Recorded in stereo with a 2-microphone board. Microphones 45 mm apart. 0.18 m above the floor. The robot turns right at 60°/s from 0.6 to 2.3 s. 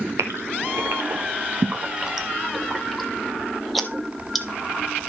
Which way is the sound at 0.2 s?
80° right.